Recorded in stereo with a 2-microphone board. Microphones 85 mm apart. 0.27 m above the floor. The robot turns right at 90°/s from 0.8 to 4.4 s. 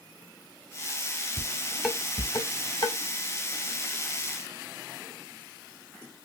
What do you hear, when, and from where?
1.4 s dishes clattering: 35° right (ahead or behind), 1.6 m; by 3.0 s 55° left (ahead or behind), 1.6 m